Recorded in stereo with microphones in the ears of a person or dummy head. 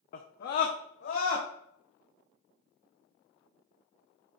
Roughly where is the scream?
Left.